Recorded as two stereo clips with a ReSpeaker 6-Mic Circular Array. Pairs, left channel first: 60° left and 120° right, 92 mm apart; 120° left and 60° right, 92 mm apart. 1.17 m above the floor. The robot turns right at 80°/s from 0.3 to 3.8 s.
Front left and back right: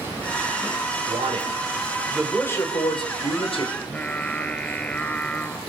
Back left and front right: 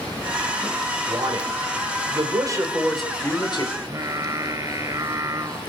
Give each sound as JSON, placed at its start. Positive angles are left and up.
{"t": 1.1, "sound": "a man speaking", "azimuth_deg": -120, "distance_m": 4.5}
{"t": 3.8, "sound": "singing", "azimuth_deg": -15, "distance_m": 1.5}